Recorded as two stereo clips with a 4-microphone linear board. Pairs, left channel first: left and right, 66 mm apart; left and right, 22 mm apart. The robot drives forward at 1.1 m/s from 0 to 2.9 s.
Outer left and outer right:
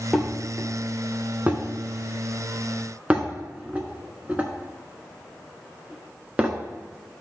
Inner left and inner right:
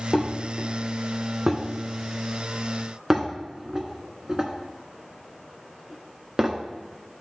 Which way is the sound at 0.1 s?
10° right (ahead or behind).